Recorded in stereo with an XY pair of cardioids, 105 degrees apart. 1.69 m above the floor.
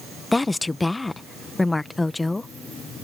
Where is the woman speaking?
15° left.